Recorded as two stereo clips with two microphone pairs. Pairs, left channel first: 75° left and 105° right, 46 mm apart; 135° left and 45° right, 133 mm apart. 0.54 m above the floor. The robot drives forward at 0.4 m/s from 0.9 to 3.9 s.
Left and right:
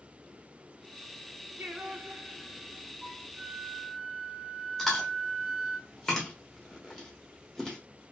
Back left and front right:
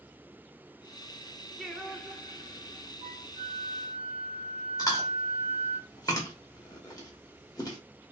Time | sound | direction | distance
1.6 | singing | 135° right | 0.7 m
3.0 | a flute | 80° right | 1.6 m
4.8 | chewing | 160° left | 1.0 m